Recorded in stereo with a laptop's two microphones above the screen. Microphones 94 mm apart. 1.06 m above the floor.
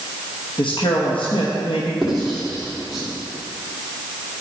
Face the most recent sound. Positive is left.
turn(degrees=0)  # may be behind; listen again after turning